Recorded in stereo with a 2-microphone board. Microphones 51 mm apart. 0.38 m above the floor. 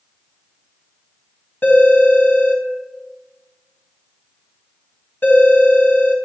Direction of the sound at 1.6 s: 40° left (ahead or behind).